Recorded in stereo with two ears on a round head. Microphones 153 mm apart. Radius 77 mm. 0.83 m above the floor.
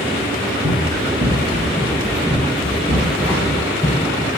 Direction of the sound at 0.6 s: 40° right (ahead or behind).